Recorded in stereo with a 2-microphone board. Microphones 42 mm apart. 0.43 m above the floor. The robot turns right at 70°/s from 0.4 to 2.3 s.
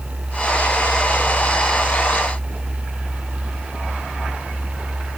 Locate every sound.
Only background noise.